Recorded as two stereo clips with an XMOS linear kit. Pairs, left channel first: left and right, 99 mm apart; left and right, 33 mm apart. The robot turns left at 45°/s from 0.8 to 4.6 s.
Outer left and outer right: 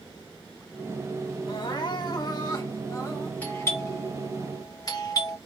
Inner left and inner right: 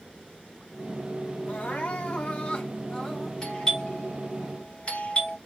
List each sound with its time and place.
1.5 s crying: 110° left, 2 m; by 3.3 s 25° left, 2 m
3.4 s a doorbell: 15° left (ahead or behind), 2.5 m; by 5.4 s 35° left (ahead or behind), 2.5 m